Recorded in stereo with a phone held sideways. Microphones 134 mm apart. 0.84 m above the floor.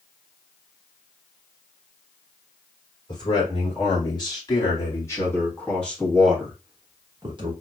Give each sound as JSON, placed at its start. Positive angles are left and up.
{"t": 3.1, "sound": "a man speaking", "side_deg": 35, "distance_m": 2.5}